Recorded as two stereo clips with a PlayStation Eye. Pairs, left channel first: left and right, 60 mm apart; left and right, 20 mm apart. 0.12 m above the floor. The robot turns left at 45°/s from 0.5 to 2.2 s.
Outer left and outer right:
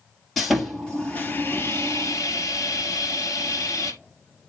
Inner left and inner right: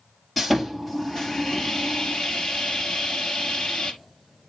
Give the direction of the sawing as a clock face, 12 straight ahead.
6 o'clock.